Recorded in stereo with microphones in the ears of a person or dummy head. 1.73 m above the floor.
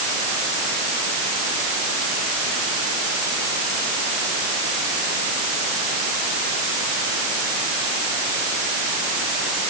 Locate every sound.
Only background noise.